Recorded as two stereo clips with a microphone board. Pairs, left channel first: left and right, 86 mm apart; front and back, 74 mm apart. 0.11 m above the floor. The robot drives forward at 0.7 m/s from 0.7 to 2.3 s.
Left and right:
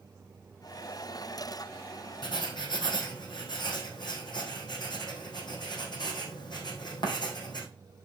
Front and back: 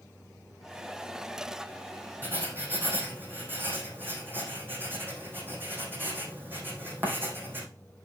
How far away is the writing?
About 3 m.